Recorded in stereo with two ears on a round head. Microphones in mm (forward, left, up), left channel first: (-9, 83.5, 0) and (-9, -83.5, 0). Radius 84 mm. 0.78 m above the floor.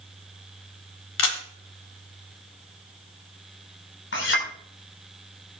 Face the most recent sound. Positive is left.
turn(degrees=65)  # may be behind; listen again after turning